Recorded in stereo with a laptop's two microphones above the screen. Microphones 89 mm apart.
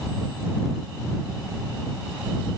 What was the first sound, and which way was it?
Only background noise.